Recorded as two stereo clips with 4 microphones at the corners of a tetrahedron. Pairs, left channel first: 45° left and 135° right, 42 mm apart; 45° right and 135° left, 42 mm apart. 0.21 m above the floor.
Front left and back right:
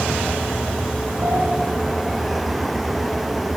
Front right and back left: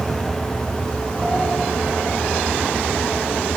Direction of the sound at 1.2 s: 135° right.